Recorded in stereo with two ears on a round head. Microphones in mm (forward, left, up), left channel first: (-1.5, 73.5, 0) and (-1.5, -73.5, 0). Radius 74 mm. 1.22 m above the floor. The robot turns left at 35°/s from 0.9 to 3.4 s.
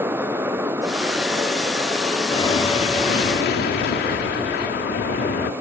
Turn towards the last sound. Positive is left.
turn(degrees=115)